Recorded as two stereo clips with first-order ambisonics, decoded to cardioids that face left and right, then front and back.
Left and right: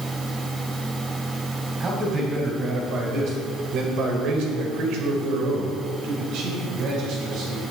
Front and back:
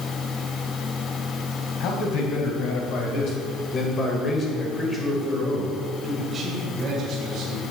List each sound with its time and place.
1.8 s a man speaking: 25° right, 3.5 m; by 7.6 s 125° right, 3.5 m